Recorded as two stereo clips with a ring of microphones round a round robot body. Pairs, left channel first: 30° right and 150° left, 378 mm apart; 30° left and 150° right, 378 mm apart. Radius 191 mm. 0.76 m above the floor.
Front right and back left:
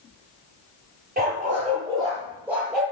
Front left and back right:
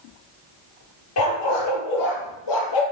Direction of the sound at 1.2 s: 80° left.